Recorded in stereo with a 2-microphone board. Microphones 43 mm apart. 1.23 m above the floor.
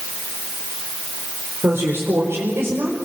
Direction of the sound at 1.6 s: 75° right (ahead or behind).